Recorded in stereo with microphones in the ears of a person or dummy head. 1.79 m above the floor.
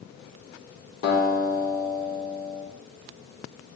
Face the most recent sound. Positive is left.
turn(degrees=60)  # may be behind; listen again after turning